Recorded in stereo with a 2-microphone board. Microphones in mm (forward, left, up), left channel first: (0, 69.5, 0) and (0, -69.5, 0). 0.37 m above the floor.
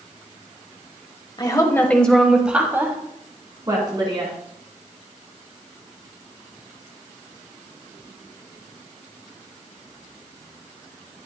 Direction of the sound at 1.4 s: 35° left (ahead or behind).